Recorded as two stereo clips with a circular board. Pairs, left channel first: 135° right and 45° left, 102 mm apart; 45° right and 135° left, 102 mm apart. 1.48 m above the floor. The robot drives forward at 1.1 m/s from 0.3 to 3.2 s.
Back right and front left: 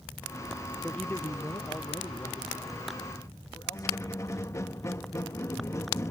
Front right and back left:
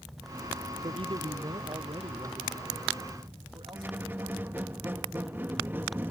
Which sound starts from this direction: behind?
A squeak, at 3.7 s.